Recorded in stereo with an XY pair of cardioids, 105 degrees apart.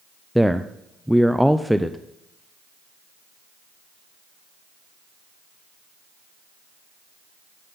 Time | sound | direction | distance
0.3 | a man speaking | straight ahead | 0.5 m